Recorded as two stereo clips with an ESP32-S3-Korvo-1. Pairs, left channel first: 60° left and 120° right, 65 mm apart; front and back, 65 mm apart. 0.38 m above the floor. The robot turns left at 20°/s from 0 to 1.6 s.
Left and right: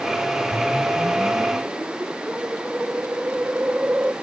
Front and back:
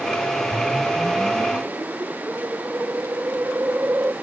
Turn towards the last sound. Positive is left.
turn(degrees=-165)